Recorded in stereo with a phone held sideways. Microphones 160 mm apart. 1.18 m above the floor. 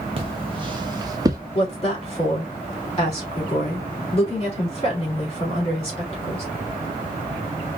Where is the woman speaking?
30° left (ahead or behind), 3 m.